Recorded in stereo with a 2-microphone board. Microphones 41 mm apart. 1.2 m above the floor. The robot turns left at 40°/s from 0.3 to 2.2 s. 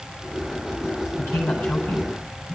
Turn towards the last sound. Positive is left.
turn(degrees=45)